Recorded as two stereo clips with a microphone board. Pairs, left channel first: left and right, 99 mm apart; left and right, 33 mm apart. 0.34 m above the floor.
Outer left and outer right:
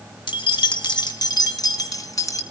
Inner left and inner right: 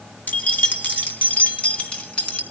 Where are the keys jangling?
55° left (ahead or behind), 1.8 m; by 2.4 s 35° left (ahead or behind), 2.5 m.